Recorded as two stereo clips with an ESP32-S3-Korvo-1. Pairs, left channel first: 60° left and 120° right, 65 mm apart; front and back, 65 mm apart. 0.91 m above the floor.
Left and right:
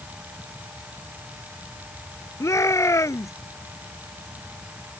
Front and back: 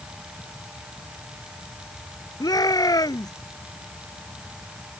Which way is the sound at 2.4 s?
20° left.